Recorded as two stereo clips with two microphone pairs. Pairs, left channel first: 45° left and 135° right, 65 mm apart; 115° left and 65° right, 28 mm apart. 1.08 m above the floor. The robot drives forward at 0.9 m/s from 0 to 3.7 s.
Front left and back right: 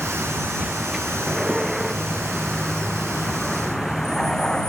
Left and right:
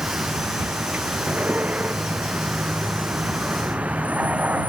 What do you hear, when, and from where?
0.0 s a vehicle: 55° right; by 4.7 s 35° right